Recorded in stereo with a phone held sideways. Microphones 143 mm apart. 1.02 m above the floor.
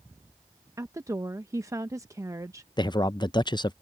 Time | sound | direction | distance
0.8 | a woman speaking | 20° right (ahead or behind) | ?
2.8 | a man speaking | 30° left (ahead or behind) | ?